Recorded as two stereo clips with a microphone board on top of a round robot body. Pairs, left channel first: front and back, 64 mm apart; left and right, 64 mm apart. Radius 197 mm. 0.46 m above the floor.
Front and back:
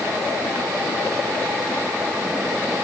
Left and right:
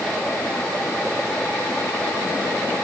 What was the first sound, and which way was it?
Only background noise.